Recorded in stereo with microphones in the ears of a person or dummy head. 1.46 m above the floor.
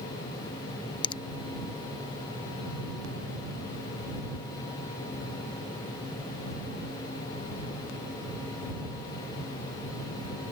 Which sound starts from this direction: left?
A finger snap, at 1.0 s.